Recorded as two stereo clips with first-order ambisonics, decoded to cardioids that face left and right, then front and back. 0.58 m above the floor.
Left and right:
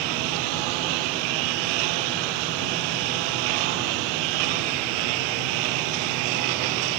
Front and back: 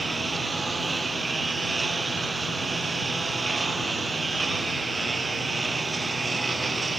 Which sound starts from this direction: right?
A lawn mower, at 0.0 s.